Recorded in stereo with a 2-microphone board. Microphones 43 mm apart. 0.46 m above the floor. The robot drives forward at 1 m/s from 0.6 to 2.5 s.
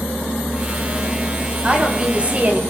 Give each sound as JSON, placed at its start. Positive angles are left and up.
{"t": 1.6, "sound": "a woman speaking", "side_deg": -25, "distance_m": 2.5}